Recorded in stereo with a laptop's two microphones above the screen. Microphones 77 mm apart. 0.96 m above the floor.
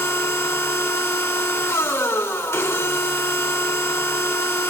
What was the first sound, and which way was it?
A machine running, 35° left (ahead or behind).